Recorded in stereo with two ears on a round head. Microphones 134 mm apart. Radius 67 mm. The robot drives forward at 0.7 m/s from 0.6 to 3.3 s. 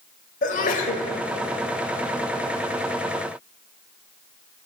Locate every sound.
0.4 s a sneeze: 55° left (ahead or behind), 1.5 m